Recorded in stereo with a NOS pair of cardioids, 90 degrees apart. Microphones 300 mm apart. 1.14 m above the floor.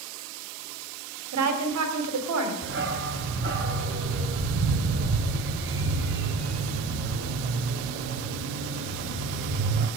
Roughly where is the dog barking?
Ahead right.